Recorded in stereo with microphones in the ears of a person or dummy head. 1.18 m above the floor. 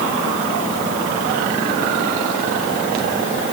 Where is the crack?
No crack in this recording.